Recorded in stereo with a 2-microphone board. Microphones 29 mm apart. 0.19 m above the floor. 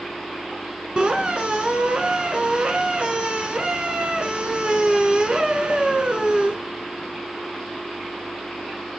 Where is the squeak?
40° right (ahead or behind), 0.9 m.